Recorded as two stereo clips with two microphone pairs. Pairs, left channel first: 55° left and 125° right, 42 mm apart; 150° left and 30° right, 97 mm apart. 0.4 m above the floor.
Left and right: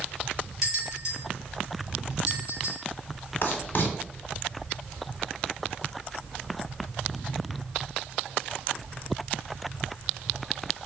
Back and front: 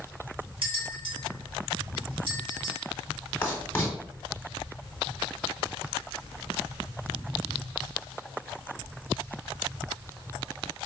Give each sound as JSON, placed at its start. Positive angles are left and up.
{"t": 0.6, "sound": "a bell", "azimuth_deg": -50, "distance_m": 1.9}
{"t": 3.4, "sound": "writing", "azimuth_deg": 80, "distance_m": 1.1}